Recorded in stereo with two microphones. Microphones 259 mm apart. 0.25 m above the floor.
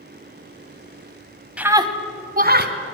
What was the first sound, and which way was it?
A scream, 5° right (ahead or behind).